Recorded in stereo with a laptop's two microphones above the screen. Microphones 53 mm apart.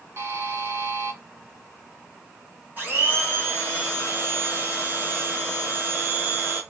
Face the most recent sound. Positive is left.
turn(degrees=-30)  # may be behind; listen again after turning